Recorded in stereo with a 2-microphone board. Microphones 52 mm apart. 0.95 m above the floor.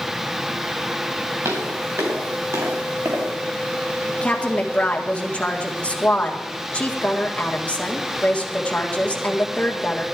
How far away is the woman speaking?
About 1.9 m.